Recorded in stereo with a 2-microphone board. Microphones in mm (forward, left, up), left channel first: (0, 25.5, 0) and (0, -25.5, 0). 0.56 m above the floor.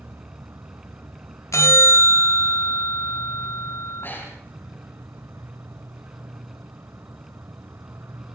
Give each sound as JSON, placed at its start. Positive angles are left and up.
{"t": 0.0, "sound": "an insect", "side_deg": -60, "distance_m": 1.1}
{"t": 1.5, "sound": "a bell", "side_deg": 80, "distance_m": 0.8}
{"t": 4.0, "sound": "breathing", "side_deg": 45, "distance_m": 8.5}